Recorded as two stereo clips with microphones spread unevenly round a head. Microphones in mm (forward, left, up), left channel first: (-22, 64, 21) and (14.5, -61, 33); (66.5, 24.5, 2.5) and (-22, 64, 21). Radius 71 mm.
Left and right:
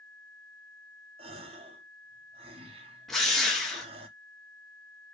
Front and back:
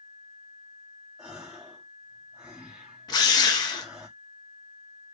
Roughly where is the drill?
Ahead.